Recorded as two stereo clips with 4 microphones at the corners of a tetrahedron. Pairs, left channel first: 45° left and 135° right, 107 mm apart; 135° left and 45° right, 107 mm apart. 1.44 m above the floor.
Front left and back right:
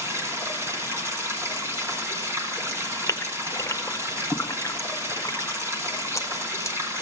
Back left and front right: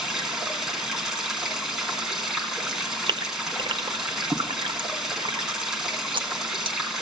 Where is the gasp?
15° right, 0.7 m.